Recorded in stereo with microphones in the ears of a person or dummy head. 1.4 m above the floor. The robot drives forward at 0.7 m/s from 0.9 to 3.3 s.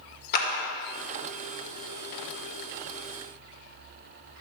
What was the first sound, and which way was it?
A clap, 50° left (ahead or behind).